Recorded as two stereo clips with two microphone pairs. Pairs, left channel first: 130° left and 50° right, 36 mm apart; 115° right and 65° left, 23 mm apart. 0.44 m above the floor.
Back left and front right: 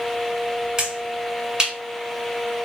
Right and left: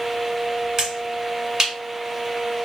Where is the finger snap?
15° left, 1.6 m.